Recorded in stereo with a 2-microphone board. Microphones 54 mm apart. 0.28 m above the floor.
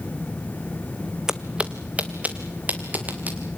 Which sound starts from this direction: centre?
Footsteps, at 1.3 s.